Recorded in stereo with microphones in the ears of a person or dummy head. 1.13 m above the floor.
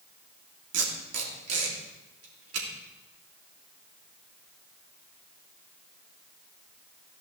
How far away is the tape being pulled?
About 3 m.